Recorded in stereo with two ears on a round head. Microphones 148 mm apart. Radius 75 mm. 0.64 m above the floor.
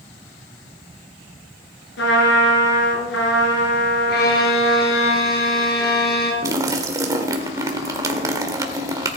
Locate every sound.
2.0 s a trumpet: 80° left, 4.5 m
4.1 s a violin: 70° left (ahead or behind), 4 m
6.4 s a splash: 20° right (ahead or behind), 1.7 m